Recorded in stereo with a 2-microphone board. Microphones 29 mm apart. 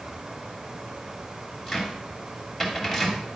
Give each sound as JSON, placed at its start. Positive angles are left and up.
{"t": 1.7, "sound": "a cupboard door", "side_deg": 5, "distance_m": 2.0}